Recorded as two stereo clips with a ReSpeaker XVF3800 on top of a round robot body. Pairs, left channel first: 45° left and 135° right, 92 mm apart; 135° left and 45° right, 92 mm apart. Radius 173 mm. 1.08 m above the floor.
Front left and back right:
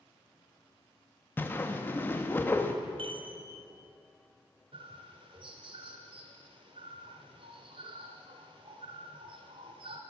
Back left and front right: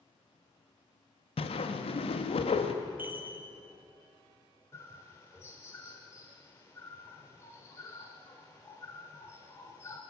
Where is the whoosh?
115° left, 1.0 m.